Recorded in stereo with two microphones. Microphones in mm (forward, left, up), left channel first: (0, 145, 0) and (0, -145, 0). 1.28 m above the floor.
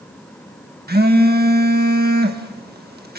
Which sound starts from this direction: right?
A phone buzzing, at 0.9 s.